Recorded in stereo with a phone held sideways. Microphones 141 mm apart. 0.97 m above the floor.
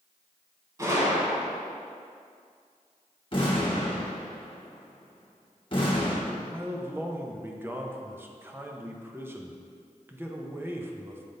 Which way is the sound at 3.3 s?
40° left (ahead or behind).